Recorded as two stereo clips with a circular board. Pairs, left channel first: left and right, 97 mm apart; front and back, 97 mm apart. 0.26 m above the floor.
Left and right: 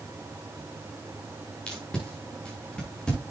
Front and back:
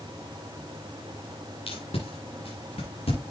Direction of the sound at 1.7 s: 10° left.